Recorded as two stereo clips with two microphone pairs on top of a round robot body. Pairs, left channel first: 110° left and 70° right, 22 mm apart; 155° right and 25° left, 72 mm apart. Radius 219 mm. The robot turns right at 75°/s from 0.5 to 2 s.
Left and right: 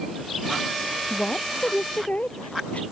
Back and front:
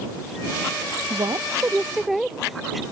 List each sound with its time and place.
1.1 s a woman speaking: 45° left; by 2.8 s 110° left